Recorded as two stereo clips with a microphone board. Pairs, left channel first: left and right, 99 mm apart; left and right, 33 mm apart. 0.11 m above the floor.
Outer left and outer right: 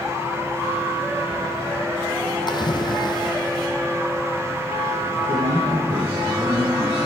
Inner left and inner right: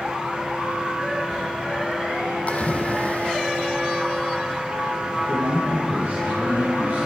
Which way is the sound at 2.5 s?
50° left (ahead or behind).